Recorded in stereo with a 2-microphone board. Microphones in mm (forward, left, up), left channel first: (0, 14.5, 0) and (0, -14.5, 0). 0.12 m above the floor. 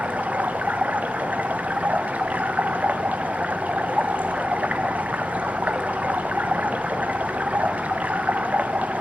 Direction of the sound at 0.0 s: 75° right (ahead or behind).